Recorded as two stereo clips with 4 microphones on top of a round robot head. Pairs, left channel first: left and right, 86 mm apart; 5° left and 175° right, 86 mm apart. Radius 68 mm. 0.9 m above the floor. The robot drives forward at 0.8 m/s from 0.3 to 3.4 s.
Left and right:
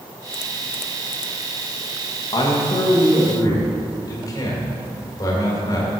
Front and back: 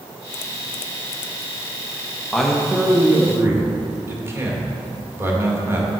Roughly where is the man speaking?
Left.